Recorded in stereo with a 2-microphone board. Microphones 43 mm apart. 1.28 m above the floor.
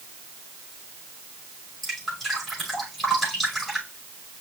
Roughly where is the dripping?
Centre.